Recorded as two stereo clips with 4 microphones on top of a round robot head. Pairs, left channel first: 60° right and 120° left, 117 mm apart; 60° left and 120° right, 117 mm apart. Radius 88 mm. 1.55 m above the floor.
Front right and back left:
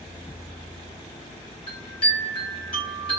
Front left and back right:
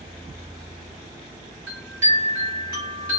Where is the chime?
55° right, 1.1 m.